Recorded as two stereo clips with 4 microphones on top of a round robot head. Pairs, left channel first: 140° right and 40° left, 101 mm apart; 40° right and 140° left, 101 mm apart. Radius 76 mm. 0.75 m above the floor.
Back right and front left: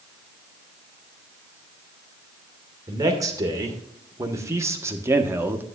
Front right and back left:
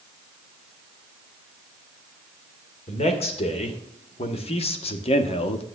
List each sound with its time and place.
2.9 s a man speaking: 20° right, 2.5 m; by 5.7 s 30° right, 1.1 m